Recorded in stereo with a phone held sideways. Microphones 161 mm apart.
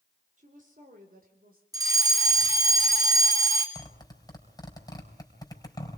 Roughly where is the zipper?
Left.